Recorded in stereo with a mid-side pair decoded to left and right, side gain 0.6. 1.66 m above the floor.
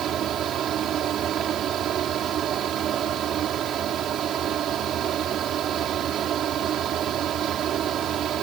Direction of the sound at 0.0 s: 50° right.